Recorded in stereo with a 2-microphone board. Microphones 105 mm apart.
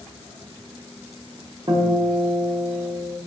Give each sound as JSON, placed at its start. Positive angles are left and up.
{"t": 1.7, "sound": "a guitar", "side_deg": -50, "distance_m": 0.7}